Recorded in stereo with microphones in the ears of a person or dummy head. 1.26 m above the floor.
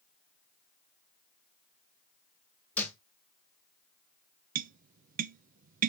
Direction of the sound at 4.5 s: 50° right (ahead or behind).